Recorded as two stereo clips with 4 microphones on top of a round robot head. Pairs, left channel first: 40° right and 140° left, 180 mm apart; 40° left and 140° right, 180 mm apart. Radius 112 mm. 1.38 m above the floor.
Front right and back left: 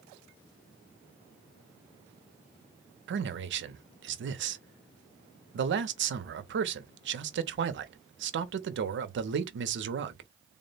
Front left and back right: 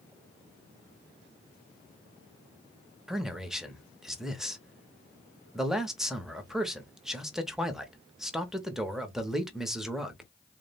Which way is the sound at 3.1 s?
135° left.